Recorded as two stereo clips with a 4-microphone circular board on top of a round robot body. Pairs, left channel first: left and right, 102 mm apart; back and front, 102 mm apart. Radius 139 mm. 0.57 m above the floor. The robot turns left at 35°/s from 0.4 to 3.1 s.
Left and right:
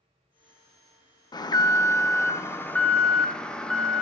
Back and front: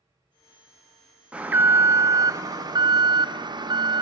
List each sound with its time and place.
1.3 s an alarm: 75° left, 0.9 m; by 4.0 s 10° left, 0.9 m